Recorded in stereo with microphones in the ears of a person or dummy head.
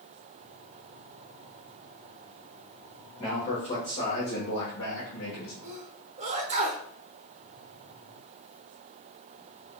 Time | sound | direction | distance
3.2 | a man speaking | 35° left (ahead or behind) | 1.5 m
5.6 | a sneeze | 30° right (ahead or behind) | 0.7 m